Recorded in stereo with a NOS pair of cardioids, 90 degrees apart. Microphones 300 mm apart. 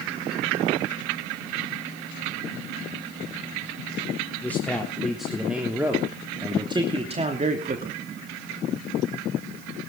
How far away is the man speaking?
About 3.5 m.